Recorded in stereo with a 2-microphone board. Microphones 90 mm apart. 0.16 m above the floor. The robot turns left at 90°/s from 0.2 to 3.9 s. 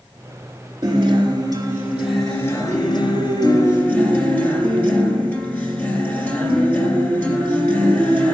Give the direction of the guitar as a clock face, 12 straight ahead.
2 o'clock.